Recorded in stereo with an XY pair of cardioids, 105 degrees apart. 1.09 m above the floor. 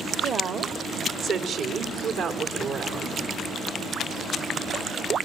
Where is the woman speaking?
60° right, 2 m; by 3.2 s 80° right, 3.5 m.